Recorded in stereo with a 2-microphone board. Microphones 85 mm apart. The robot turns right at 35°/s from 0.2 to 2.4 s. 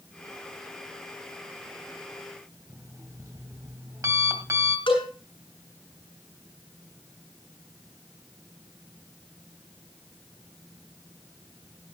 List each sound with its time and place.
2.7 s an alarm clock: 40° right (ahead or behind), 2 m
4.9 s a cowbell: 80° left, 5.5 m